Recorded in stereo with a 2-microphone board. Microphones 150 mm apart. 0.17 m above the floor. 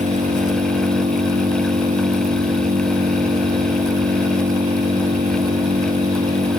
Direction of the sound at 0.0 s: 50° right (ahead or behind).